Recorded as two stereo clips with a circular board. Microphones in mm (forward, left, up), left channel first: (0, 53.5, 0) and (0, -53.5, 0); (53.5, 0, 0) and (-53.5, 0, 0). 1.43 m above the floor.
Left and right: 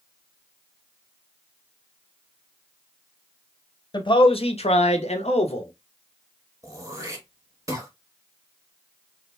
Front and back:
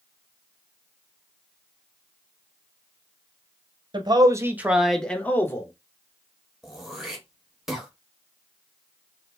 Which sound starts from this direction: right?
Throat clearing, at 6.6 s.